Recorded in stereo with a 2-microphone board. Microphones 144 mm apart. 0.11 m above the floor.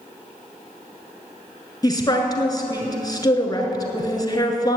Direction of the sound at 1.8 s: 25° left (ahead or behind).